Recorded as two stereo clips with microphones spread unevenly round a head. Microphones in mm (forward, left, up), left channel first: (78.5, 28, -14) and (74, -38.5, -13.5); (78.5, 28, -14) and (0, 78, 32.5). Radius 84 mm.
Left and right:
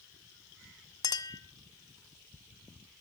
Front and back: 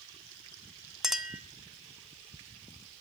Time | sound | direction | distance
1.0 | a clink | 70° left | 1.6 m